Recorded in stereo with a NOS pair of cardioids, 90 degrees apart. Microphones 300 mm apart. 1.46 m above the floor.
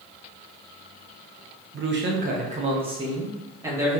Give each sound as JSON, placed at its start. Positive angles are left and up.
{"t": 1.7, "sound": "a man speaking", "azimuth_deg": -45, "distance_m": 0.9}